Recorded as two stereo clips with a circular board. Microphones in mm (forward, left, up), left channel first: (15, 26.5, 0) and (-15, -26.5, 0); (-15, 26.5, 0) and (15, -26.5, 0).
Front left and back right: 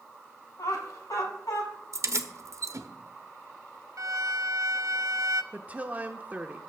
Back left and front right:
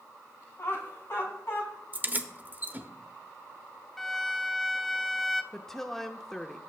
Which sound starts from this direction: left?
Laughter, at 0.6 s.